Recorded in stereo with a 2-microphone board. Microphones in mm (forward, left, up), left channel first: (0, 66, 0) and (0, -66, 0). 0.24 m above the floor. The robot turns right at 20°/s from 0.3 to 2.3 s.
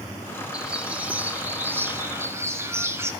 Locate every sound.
0.5 s a bird: 10° right (ahead or behind), 1.3 m; by 3.1 s 20° right (ahead or behind), 1.3 m